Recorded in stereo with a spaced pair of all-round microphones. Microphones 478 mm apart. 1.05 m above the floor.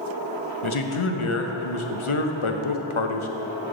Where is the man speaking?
80° left, 0.8 m.